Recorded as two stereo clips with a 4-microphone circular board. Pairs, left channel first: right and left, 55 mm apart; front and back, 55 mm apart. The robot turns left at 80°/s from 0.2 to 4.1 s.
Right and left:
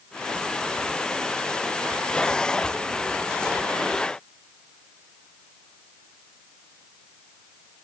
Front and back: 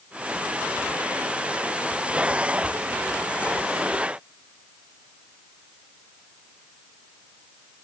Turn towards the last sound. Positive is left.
No sound to turn to.